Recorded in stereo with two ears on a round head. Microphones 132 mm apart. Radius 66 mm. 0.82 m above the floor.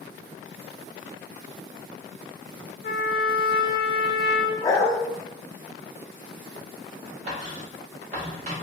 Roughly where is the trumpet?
Left.